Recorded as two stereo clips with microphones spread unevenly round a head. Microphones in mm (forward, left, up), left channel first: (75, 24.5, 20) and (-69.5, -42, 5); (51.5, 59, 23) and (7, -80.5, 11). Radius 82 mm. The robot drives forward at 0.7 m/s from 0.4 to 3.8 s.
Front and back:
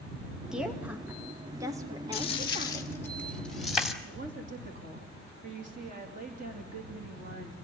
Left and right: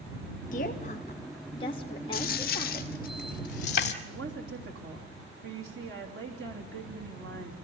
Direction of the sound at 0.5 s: 120° left.